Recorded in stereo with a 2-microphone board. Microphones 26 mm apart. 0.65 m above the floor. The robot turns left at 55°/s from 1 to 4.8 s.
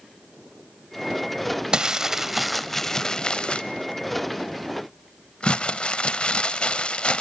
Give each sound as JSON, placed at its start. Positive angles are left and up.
{"t": 1.7, "sound": "crumpling", "azimuth_deg": -135, "distance_m": 0.6}